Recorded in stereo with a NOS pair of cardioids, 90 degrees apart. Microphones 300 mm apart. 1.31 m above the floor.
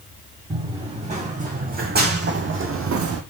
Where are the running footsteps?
20° right, 4.5 m; by 3.2 s 70° right, 2.5 m.